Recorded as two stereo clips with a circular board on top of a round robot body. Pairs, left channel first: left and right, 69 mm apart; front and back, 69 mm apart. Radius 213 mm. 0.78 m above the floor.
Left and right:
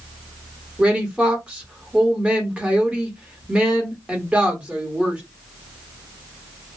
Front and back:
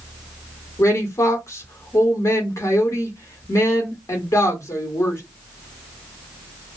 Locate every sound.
0.8 s a woman speaking: 20° right, 1.4 m